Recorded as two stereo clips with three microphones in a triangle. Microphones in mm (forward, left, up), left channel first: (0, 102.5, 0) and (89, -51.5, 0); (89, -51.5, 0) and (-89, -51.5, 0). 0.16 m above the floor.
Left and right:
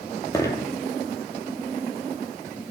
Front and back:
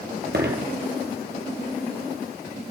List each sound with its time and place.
0.3 s a dropped coin: 170° right, 1.6 m